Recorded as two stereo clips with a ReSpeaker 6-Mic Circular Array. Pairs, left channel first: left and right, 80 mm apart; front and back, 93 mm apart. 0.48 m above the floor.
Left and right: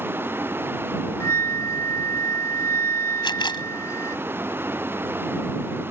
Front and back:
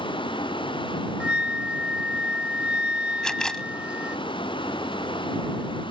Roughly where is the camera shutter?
Left.